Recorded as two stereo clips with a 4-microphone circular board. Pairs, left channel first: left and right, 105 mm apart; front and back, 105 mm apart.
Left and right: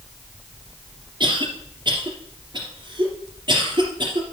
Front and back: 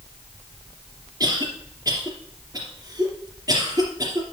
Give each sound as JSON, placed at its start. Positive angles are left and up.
{"t": 1.2, "sound": "a cough", "azimuth_deg": -125, "distance_m": 2.5}